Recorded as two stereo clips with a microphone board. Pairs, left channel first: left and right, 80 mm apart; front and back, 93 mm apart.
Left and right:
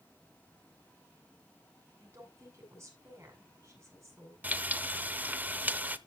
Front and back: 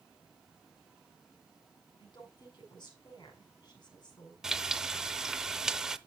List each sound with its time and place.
2.0 s a woman speaking: 40° right, 6.5 m
4.4 s frying: 105° right, 0.7 m